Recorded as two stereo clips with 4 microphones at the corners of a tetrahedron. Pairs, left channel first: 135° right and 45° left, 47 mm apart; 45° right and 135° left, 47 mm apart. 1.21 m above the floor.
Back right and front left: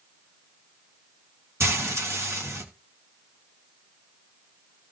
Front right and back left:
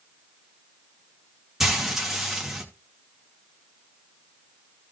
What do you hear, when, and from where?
1.6 s frying: 50° left, 2.5 m